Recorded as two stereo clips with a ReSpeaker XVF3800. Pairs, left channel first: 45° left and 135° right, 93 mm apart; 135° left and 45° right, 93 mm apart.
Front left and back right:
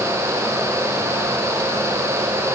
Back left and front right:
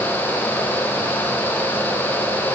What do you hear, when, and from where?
Only background noise.